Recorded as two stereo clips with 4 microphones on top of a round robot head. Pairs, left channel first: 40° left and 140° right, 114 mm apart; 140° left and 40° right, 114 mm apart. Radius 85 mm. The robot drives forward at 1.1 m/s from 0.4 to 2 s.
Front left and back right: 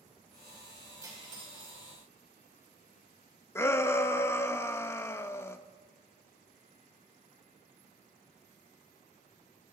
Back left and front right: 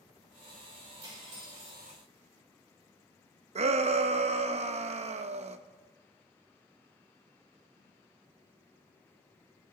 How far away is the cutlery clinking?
About 3.5 m.